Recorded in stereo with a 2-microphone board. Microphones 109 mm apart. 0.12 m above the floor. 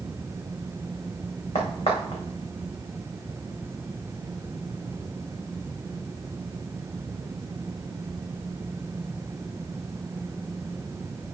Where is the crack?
70° left (ahead or behind), 3.5 m.